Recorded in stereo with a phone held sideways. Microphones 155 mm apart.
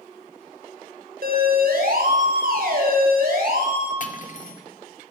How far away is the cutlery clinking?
About 2.5 m.